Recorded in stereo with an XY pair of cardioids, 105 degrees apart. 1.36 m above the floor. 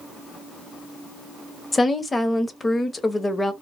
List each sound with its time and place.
1.7 s a woman speaking: 25° left, 0.7 m